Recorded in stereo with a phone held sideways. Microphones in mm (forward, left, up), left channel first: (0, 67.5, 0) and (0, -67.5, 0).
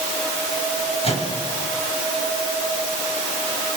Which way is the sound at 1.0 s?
50° left (ahead or behind).